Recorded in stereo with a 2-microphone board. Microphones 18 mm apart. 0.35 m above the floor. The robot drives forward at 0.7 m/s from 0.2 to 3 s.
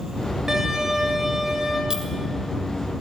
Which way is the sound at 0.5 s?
25° right (ahead or behind).